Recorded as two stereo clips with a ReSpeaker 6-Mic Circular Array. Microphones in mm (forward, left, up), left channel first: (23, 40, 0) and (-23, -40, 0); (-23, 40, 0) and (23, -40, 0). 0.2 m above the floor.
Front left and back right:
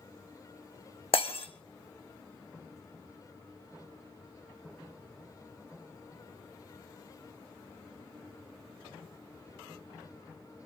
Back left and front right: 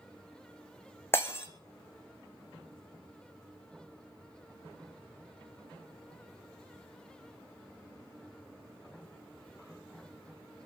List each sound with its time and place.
1.1 s breaking glass: 55° left, 3 m